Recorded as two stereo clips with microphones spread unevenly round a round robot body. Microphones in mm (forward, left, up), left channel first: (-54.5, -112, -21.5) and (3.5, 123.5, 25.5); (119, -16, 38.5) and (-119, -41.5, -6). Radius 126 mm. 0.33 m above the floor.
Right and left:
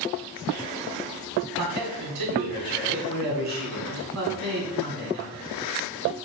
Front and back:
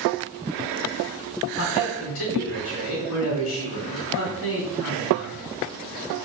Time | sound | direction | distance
1.6 | a man speaking | 45° left | 3 m